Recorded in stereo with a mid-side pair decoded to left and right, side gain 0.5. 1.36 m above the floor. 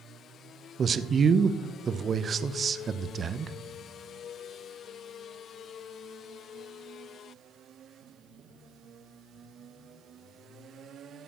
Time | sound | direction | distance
0.8 | a man speaking | 40° right | 0.8 m